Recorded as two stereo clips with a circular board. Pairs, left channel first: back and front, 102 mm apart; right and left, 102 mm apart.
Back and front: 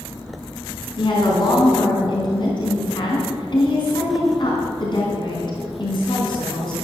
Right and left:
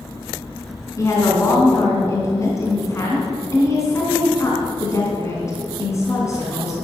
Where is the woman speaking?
145° right, 3.5 m.